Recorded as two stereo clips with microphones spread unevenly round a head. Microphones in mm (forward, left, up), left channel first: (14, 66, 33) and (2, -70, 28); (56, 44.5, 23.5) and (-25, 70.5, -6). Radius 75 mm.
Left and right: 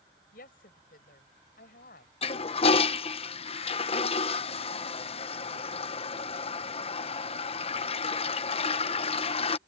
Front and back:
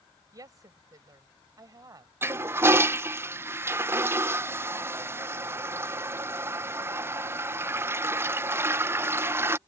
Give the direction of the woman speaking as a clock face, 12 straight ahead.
8 o'clock.